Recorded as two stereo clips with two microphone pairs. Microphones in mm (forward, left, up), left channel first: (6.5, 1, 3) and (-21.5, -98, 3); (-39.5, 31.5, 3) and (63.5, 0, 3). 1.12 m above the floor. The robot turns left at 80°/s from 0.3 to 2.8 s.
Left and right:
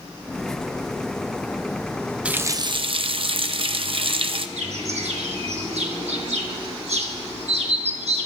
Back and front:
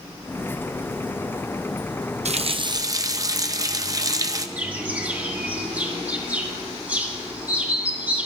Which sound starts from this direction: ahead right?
A running tap, at 2.2 s.